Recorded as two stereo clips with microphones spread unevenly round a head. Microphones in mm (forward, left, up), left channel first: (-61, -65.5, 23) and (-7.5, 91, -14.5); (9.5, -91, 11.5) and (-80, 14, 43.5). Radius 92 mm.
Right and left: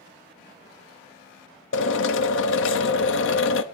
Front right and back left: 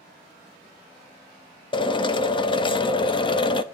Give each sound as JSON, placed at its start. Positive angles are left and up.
{"t": 1.7, "sound": "a drill", "azimuth_deg": -110, "distance_m": 0.8}